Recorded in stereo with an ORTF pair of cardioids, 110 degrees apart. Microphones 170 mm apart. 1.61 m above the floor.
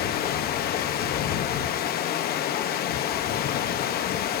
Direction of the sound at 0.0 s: 70° left.